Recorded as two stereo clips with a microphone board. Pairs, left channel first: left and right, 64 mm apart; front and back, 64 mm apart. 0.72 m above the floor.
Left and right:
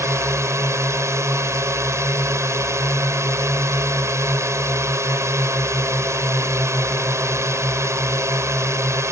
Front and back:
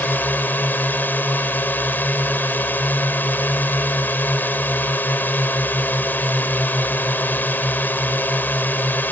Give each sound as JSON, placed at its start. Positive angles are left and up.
{"t": 0.0, "sound": "a drone", "azimuth_deg": -55}